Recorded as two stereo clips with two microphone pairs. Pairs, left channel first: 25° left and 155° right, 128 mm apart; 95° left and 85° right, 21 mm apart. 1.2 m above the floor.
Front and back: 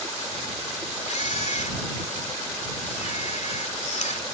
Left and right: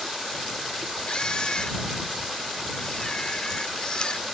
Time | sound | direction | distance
1.1 | a camera shutter | 45° left | ?